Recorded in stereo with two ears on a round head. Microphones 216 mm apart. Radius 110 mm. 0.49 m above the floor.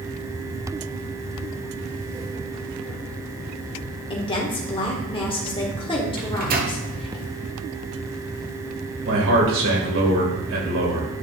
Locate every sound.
4.1 s a woman speaking: 25° left (ahead or behind), 1.5 m
6.2 s a microwave: 40° right (ahead or behind), 1.4 m
9.1 s a man speaking: 60° right (ahead or behind), 2.5 m